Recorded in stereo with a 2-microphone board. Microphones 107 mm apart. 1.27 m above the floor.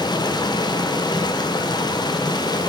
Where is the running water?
40° left (ahead or behind), 0.7 m.